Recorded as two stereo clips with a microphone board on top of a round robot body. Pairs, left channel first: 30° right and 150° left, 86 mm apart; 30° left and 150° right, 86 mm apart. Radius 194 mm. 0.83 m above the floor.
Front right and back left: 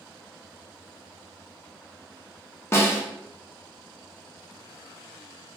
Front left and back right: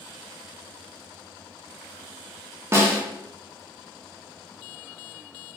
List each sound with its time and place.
2.7 s a snare drum: 90° right, 1.2 m